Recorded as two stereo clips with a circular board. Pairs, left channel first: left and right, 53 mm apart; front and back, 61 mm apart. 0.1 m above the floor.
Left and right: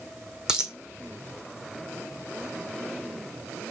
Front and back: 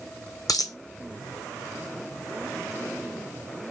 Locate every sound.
0.5 s a dropped coin: 10° right, 0.6 m